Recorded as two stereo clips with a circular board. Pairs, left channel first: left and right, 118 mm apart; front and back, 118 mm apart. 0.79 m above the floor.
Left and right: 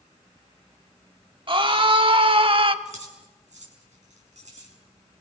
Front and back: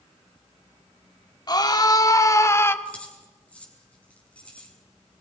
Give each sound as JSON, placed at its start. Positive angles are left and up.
{"t": 1.5, "sound": "a scream", "azimuth_deg": -50, "distance_m": 2.0}
{"t": 2.9, "sound": "keys jangling", "azimuth_deg": -80, "distance_m": 6.5}